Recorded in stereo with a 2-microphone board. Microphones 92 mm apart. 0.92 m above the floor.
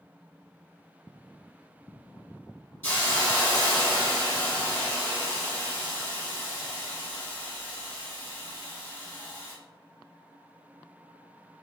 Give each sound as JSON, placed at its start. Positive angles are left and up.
{"t": 2.8, "sound": "a hiss", "side_deg": 20, "distance_m": 1.5}